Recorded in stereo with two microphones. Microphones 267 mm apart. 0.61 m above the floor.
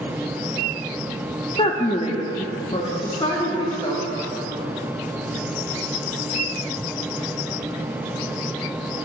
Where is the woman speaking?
20° left (ahead or behind), 0.5 m.